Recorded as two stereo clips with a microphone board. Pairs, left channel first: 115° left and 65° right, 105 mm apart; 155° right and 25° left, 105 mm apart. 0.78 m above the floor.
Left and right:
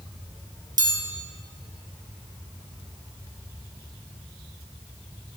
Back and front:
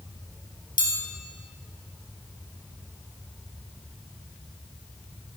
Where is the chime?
115° right, 2.5 m.